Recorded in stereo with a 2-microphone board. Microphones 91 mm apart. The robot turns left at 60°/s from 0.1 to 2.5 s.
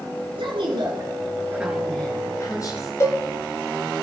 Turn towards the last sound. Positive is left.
turn(degrees=35)  # may be behind; listen again after turning